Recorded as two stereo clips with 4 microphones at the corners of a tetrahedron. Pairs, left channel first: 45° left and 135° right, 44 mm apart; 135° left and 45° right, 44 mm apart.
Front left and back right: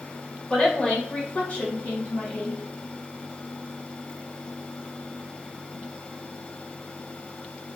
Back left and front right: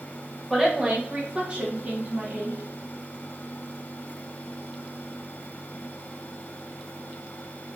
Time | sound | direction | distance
0.5 | a woman speaking | 25° left | 1.0 m